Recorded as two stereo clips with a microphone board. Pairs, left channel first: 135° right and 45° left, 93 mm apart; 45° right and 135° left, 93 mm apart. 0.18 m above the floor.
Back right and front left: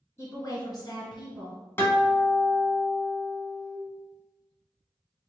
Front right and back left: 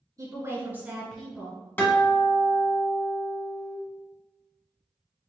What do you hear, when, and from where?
0.2 s a woman speaking: 170° left, 1.5 m; by 1.6 s 115° right, 1.6 m
1.8 s a guitar: 95° right, 1.1 m